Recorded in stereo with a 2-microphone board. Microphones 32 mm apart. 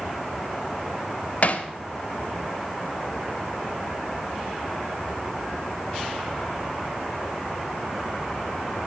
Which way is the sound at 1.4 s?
50° left (ahead or behind).